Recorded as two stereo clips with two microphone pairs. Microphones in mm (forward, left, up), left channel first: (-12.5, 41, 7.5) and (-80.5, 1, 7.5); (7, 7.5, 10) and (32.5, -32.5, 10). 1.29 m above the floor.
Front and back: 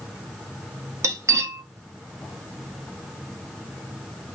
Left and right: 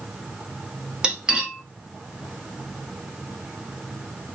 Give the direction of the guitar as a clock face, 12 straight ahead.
I don't hear a guitar.